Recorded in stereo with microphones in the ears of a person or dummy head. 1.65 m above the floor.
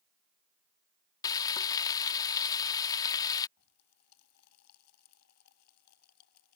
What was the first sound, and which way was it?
Frying, 20° left (ahead or behind).